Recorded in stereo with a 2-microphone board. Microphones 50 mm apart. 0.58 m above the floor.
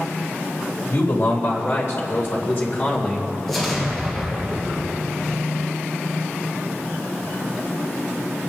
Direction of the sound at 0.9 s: 70° left (ahead or behind).